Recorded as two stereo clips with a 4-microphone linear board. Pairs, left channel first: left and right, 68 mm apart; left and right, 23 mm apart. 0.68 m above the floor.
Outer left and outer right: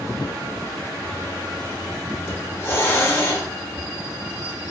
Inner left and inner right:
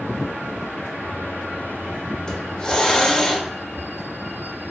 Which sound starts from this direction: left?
A hiss, at 2.3 s.